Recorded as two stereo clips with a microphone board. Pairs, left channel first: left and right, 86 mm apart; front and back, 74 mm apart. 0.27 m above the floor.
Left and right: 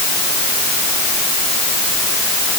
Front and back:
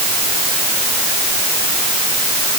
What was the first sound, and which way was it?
Only background noise.